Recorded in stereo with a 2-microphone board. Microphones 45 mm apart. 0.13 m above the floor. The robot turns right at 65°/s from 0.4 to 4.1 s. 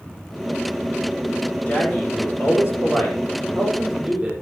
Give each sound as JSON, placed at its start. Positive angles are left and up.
{"t": 1.7, "sound": "a man speaking", "azimuth_deg": 40, "distance_m": 6.0}